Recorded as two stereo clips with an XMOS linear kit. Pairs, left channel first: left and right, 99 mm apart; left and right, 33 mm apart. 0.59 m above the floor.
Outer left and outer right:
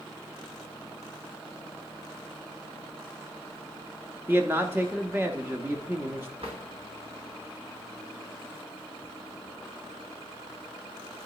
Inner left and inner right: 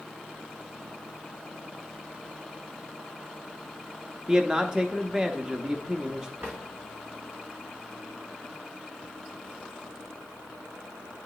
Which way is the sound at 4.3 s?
20° right (ahead or behind).